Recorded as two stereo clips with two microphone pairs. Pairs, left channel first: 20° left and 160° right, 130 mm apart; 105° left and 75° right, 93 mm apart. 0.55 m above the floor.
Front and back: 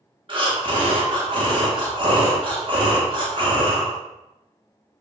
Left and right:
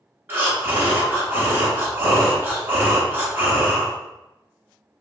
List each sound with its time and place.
0.3 s breathing: 135° right, 0.7 m